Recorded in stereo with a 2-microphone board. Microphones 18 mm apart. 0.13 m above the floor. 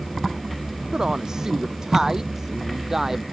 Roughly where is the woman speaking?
Right.